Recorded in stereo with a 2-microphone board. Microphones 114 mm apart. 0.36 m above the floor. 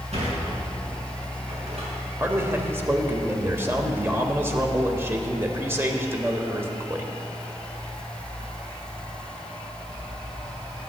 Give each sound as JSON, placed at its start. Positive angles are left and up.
{"t": 0.1, "sound": "a sliding door", "side_deg": -70, "distance_m": 5.0}
{"t": 2.2, "sound": "a man speaking", "side_deg": -20, "distance_m": 1.3}